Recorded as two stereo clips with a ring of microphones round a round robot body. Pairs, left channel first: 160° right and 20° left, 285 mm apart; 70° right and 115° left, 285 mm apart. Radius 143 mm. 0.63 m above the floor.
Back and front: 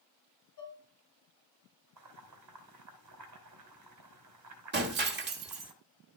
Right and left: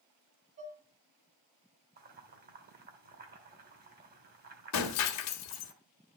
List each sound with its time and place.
0.6 s dishes clattering: straight behind, 3 m
2.0 s boiling: 55° left, 2.5 m
4.7 s breaking glass: 35° right, 1.3 m